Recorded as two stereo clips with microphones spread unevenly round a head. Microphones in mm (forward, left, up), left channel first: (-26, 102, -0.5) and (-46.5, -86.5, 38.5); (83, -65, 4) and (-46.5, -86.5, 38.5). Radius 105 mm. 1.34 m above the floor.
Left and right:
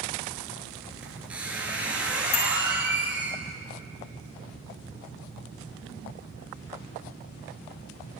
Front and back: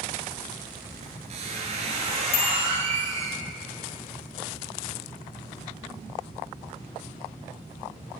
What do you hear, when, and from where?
1.0 s a squeak: 175° right, 2.5 m
2.3 s a bicycle bell: 40° left, 2.5 m